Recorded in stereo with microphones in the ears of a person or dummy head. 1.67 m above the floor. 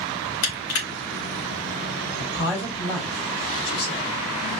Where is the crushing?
70° left (ahead or behind), 2 m.